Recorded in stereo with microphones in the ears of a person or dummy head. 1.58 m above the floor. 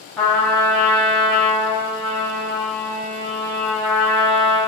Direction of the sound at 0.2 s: 5° left (ahead or behind).